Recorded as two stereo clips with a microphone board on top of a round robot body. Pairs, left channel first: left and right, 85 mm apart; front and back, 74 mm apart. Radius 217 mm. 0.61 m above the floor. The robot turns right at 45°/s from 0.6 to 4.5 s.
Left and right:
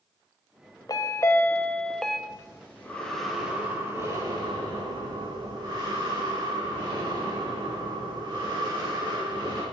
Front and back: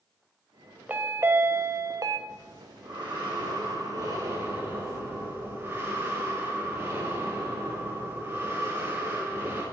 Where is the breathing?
135° left, 4.5 m; by 9.6 s 125° right, 4.5 m.